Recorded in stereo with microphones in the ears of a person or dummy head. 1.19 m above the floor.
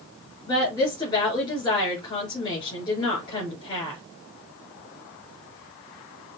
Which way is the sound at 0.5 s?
25° left (ahead or behind).